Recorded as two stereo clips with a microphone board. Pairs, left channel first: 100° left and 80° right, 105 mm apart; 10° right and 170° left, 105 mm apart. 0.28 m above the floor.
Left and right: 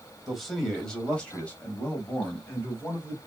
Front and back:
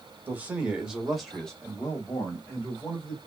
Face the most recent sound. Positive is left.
turn(degrees=50)